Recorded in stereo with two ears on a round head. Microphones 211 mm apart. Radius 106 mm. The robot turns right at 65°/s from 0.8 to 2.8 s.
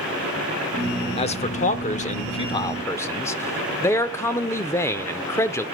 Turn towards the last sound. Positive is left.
turn(degrees=160)